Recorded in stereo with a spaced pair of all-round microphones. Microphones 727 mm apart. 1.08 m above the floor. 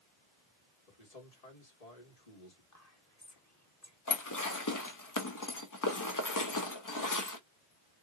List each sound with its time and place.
0.9 s a man speaking: 55° left (ahead or behind), 1.6 m
2.7 s whispering: 25° left (ahead or behind), 0.6 m
4.1 s dishes clattering: 30° left (ahead or behind), 0.6 m